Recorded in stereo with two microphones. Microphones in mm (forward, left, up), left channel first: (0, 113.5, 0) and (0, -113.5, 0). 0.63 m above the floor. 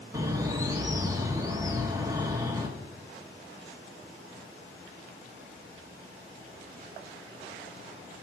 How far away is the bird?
About 1.1 m.